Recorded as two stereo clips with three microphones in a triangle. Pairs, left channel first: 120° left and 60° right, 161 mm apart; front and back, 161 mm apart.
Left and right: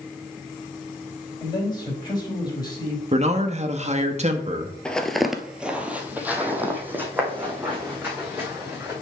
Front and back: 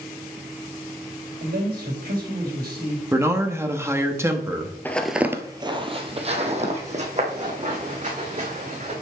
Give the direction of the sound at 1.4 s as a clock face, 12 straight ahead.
6 o'clock.